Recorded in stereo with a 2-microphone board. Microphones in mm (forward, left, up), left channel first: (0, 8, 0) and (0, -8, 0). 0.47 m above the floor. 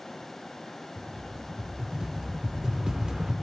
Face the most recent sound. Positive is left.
turn(degrees=-45)  # may be behind; listen again after turning